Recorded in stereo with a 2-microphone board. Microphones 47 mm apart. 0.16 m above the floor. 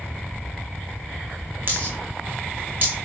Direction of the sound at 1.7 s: 40° right (ahead or behind).